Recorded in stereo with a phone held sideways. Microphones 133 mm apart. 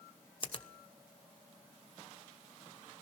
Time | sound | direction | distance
0.4 | a finger snap | 40° left (ahead or behind) | 1.0 m